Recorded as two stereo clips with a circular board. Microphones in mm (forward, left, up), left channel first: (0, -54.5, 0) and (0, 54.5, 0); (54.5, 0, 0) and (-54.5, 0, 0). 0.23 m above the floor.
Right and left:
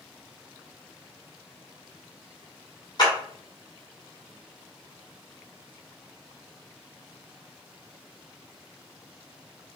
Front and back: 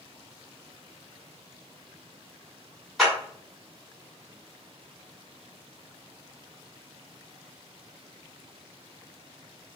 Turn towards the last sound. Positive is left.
turn(degrees=-90)